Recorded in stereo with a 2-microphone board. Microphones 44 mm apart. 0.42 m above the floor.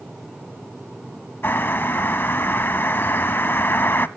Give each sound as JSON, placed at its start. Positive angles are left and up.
{"t": 1.4, "sound": "a bird", "side_deg": 50, "distance_m": 0.6}